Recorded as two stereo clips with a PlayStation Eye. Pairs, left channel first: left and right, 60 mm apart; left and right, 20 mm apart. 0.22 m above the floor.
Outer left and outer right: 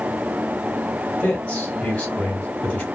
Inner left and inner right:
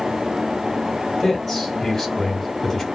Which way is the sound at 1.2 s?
20° left (ahead or behind).